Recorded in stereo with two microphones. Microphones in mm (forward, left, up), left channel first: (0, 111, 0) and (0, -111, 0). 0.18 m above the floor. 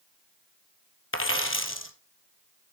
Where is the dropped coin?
70° left (ahead or behind), 1.3 m.